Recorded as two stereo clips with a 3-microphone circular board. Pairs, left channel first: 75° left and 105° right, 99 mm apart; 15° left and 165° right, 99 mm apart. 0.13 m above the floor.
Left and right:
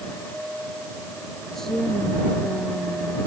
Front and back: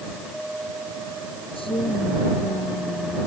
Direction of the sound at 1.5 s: 15° right.